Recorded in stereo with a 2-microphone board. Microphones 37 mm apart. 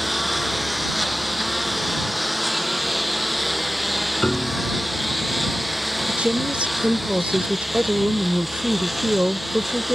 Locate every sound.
0.0 s a lawn mower: 5° right (ahead or behind)
4.2 s a piano: 30° left (ahead or behind)
6.1 s a woman speaking: 35° right (ahead or behind)